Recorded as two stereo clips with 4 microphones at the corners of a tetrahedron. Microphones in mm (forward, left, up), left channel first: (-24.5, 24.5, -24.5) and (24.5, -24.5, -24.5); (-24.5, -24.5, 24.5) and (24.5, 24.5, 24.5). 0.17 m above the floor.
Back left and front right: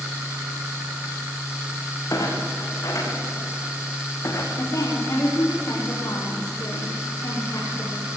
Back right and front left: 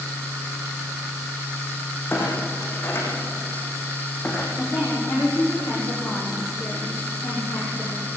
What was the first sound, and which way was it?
A clunk, 170° left.